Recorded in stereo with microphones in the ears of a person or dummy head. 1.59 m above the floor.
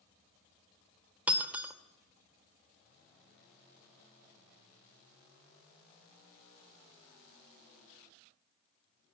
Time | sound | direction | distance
1.3 | breaking glass | 10° right (ahead or behind) | 1.9 m